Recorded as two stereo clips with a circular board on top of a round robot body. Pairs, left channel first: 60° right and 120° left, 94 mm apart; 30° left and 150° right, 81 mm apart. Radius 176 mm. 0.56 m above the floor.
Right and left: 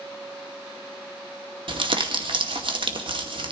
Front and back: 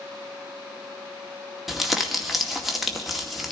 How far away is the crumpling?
About 2 m.